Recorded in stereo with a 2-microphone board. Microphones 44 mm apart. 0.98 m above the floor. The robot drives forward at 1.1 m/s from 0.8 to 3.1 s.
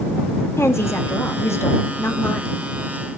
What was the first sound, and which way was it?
A woman speaking, 70° left (ahead or behind).